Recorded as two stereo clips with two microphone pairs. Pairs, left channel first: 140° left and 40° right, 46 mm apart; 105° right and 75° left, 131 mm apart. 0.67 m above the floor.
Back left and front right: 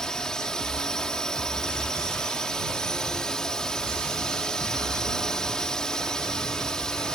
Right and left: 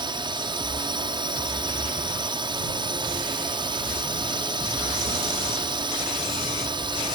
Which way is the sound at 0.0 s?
75° left.